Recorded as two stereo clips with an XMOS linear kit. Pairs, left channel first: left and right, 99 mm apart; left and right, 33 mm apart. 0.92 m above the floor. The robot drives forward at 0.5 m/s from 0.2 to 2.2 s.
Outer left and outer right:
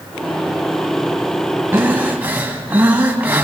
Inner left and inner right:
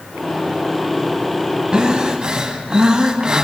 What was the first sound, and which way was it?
Breathing, 20° right (ahead or behind).